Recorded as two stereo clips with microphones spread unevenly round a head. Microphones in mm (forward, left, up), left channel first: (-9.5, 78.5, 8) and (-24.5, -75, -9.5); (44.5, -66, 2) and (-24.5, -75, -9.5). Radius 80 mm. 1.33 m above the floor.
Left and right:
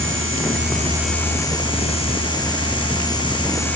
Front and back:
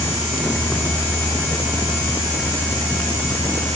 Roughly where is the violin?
I don't hear a violin.